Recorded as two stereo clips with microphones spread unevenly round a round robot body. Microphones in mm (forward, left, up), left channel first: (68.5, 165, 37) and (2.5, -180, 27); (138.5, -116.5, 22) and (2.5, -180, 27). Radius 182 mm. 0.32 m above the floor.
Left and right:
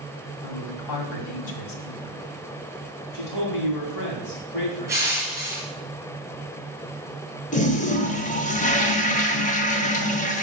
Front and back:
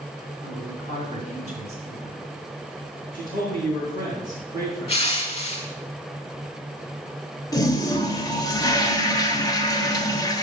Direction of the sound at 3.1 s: 55° left.